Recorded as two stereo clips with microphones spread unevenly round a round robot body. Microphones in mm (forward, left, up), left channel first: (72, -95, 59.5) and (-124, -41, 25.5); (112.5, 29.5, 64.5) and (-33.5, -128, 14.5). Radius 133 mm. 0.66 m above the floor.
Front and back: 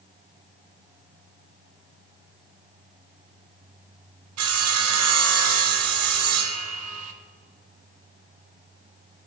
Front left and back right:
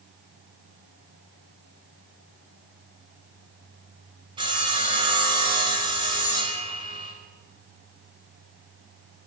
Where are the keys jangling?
I don't hear keys jangling.